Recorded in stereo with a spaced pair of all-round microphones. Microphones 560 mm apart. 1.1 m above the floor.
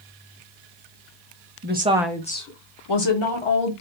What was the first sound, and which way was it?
A woman speaking, 25° right (ahead or behind).